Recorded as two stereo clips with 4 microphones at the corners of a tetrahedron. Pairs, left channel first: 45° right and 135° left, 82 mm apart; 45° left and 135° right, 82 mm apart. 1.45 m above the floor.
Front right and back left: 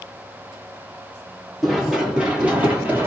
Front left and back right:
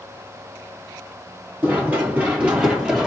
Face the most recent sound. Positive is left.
turn(degrees=150)